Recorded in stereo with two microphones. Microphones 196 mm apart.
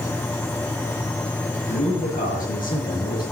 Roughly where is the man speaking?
Left.